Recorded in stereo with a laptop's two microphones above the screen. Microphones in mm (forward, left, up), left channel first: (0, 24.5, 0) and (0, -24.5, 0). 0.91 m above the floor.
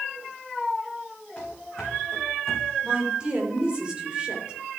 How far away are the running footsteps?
About 3.5 m.